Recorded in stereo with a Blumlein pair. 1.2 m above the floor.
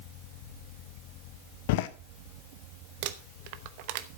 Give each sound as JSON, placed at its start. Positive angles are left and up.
{"t": 1.7, "sound": "a door slam", "azimuth_deg": 50, "distance_m": 0.7}
{"t": 3.0, "sound": "crumpling", "azimuth_deg": -45, "distance_m": 0.9}